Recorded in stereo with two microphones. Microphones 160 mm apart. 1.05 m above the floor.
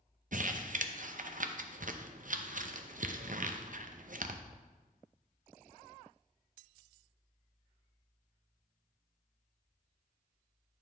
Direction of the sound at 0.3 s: 60° right (ahead or behind).